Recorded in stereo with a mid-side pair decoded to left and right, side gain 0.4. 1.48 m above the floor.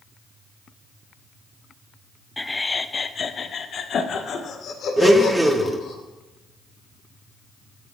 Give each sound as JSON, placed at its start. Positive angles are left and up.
{"t": 2.4, "sound": "laughter", "azimuth_deg": 10, "distance_m": 0.7}
{"t": 5.0, "sound": "a blender", "azimuth_deg": -15, "distance_m": 1.4}